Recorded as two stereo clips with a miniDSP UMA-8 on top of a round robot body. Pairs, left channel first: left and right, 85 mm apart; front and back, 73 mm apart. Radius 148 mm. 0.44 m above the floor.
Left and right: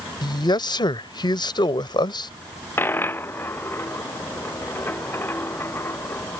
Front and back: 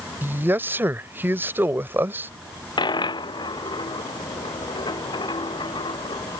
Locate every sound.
0.2 s a man speaking: 120° left
2.8 s a dropped coin: 25° left